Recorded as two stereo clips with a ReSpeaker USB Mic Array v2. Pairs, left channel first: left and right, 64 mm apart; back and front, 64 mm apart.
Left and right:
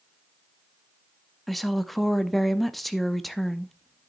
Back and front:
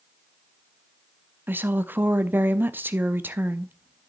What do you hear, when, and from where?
1.5 s a woman speaking: straight ahead, 0.6 m